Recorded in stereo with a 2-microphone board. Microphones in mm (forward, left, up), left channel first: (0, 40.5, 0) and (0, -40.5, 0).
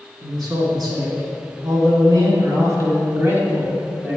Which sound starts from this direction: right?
A man speaking, at 0.2 s.